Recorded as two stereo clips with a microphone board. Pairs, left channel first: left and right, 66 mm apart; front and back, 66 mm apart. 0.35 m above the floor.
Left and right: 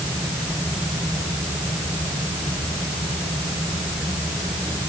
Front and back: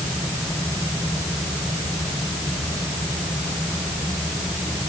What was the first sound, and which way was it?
Only background noise.